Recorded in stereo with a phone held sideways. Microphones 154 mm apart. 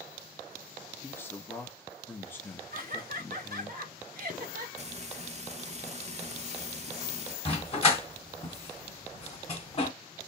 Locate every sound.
1.0 s a man speaking: 15° left (ahead or behind), 1.2 m
2.7 s laughter: 65° right (ahead or behind), 1.5 m
4.8 s frying: 45° right (ahead or behind), 0.7 m
7.5 s a dog barking: 35° left (ahead or behind), 1.9 m